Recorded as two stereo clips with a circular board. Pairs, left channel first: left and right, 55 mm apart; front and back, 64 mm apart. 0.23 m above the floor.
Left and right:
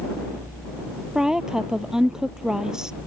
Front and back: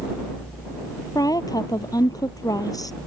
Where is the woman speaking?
10° right.